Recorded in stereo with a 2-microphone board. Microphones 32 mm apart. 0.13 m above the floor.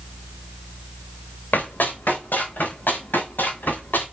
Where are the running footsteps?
85° left, 5 m; by 4.0 s 80° left, 8 m.